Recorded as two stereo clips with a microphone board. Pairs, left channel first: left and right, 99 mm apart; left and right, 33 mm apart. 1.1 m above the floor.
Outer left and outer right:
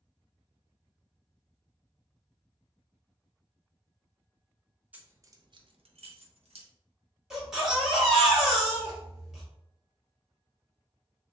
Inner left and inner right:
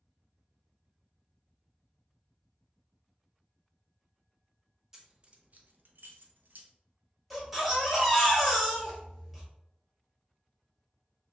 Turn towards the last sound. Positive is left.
turn(degrees=-5)  # may be behind; listen again after turning